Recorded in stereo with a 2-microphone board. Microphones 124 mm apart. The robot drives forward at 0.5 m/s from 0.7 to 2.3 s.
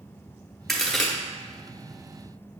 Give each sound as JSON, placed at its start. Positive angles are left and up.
{"t": 0.7, "sound": "a crack", "side_deg": 0, "distance_m": 1.0}